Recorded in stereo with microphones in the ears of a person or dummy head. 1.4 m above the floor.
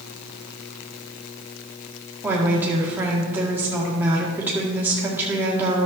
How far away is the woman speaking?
About 1.9 m.